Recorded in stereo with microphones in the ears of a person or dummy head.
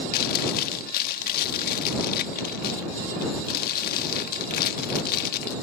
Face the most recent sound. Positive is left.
turn(degrees=50)  # may be behind; listen again after turning